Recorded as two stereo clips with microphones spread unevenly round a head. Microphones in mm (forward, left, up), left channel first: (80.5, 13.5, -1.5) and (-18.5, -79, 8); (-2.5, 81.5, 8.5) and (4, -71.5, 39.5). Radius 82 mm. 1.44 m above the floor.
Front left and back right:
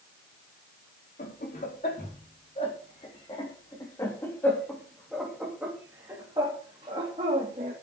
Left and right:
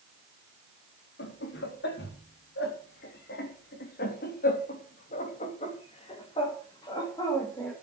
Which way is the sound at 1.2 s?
90° left.